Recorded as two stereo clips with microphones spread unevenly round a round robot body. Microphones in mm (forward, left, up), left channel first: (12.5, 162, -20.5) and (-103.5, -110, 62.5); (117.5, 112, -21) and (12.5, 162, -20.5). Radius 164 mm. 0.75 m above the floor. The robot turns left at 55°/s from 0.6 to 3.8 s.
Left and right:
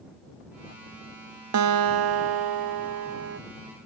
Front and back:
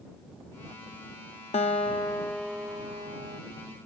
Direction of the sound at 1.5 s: 65° right.